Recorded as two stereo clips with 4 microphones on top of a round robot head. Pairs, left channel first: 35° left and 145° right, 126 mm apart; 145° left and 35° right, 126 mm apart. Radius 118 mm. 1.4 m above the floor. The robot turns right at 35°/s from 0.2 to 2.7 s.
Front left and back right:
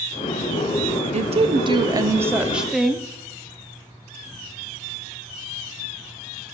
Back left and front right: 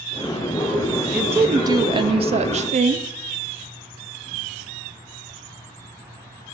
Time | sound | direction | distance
1.1 | a woman speaking | 110° right | 0.5 m